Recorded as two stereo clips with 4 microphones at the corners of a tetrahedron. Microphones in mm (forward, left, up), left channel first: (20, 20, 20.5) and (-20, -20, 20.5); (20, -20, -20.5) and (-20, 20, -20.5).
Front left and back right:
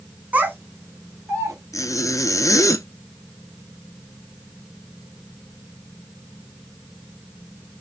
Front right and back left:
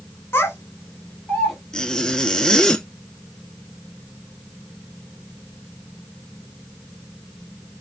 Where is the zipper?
35° left, 0.6 m.